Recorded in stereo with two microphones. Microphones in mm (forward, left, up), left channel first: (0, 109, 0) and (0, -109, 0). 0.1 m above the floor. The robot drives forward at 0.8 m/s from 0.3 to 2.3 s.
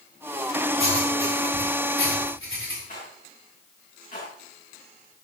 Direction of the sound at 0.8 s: 80° left.